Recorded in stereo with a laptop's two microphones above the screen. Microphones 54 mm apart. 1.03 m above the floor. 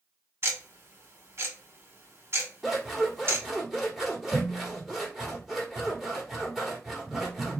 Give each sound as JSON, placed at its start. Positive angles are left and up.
{"t": 0.4, "sound": "ticking", "side_deg": -50, "distance_m": 1.9}
{"t": 2.6, "sound": "scissors", "side_deg": -5, "distance_m": 1.6}